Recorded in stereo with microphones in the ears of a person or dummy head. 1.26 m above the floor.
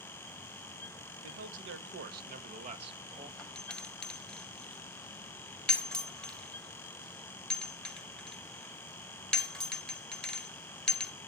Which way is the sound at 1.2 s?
75° right (ahead or behind).